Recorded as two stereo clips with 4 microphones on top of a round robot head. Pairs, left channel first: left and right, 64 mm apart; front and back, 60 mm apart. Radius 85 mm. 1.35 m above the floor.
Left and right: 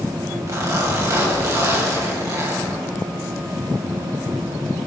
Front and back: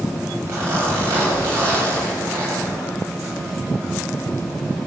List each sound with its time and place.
0.5 s a zipper: 125° right, 9.5 m